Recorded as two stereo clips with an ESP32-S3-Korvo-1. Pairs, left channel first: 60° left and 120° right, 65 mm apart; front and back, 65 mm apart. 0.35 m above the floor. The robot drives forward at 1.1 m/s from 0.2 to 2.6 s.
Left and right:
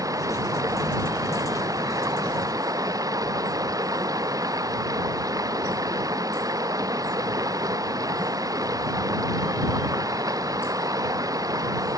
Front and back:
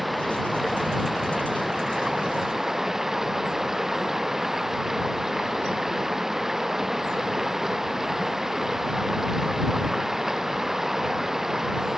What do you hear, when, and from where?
0.0 s running water: 90° right; by 12.0 s 95° right